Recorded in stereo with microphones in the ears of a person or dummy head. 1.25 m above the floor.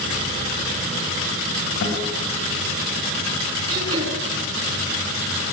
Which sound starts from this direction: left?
A guitar, at 1.8 s.